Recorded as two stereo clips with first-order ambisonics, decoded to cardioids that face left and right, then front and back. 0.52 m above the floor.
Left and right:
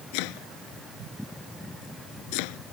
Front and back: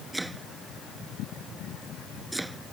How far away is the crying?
No crying in this recording.